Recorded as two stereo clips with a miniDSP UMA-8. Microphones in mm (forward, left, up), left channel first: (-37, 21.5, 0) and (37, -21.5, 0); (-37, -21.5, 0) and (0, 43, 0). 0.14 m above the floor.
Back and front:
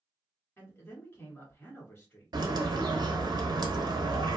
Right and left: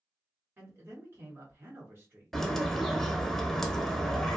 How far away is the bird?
About 0.6 m.